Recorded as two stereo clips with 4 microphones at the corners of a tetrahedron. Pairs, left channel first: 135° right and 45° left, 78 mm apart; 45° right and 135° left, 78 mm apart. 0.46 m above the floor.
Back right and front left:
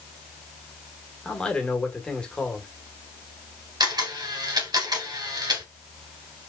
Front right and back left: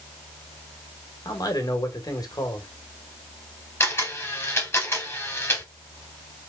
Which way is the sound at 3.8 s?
15° left.